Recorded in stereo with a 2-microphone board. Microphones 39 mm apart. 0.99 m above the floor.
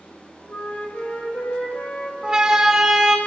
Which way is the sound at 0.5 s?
45° left (ahead or behind).